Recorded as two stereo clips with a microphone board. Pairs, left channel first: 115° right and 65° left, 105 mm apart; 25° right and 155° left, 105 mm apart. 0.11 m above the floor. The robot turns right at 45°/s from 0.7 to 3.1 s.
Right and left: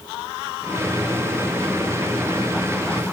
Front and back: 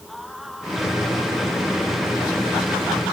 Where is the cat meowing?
No cat meowing in this recording.